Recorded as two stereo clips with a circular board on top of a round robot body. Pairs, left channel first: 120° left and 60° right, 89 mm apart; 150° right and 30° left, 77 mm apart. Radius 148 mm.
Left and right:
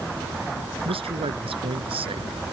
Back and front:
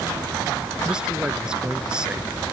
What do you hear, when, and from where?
0.8 s a man speaking: 50° right